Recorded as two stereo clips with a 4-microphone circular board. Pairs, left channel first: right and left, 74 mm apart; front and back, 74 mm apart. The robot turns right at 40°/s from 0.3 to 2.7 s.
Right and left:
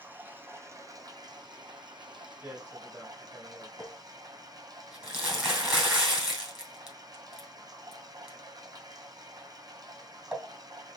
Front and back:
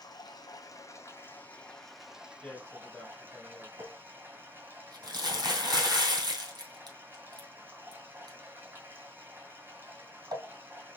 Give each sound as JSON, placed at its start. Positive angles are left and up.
{"t": 0.0, "sound": "running water", "azimuth_deg": 25, "distance_m": 0.8}
{"t": 2.4, "sound": "a man speaking", "azimuth_deg": 45, "distance_m": 1.6}
{"t": 3.8, "sound": "crumpling", "azimuth_deg": 170, "distance_m": 2.5}